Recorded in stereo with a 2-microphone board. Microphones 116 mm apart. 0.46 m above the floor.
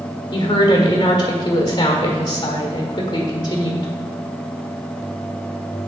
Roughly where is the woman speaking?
Left.